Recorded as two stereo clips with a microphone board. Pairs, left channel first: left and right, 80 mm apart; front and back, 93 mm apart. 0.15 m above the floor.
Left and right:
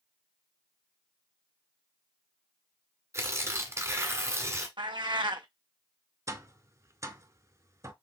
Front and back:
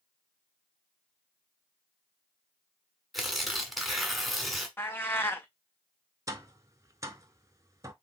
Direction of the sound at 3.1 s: 90° right.